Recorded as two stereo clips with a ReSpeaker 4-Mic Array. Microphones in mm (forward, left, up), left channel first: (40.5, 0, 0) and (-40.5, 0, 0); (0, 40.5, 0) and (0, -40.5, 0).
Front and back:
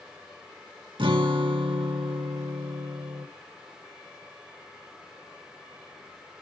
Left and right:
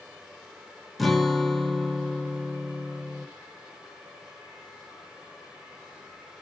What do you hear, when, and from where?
1.0 s a guitar: straight behind, 1.2 m